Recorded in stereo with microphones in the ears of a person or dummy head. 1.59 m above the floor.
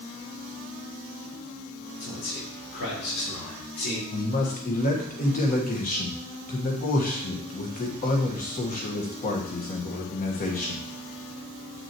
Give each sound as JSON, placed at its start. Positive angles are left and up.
{"t": 2.0, "sound": "a man speaking", "side_deg": 85, "distance_m": 4.0}
{"t": 4.1, "sound": "a man speaking", "side_deg": 45, "distance_m": 1.5}